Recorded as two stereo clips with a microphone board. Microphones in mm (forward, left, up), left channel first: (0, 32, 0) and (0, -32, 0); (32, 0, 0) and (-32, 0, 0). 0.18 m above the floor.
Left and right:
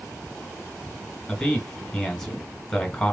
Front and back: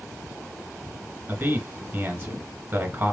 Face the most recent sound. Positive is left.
turn(degrees=165)